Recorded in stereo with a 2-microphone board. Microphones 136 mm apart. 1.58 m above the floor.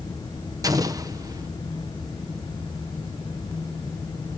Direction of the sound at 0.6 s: 30° right (ahead or behind).